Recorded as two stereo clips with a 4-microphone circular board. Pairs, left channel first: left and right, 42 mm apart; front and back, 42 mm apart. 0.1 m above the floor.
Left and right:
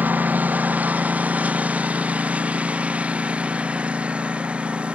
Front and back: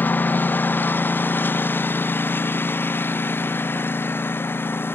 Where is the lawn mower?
40° right; by 5.0 s 25° right.